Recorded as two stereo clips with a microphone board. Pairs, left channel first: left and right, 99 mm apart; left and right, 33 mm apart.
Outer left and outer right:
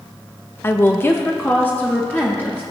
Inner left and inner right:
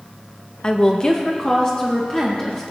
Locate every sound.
0.6 s a woman speaking: 25° left (ahead or behind), 0.5 m; by 2.6 s 15° left (ahead or behind), 1.7 m